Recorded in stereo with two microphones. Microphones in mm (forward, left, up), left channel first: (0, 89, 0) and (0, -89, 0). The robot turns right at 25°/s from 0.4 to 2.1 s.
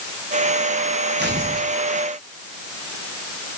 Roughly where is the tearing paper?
Right.